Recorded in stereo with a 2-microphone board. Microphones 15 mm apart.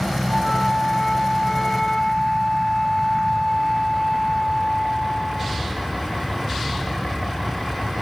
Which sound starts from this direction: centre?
A flute, at 0.3 s.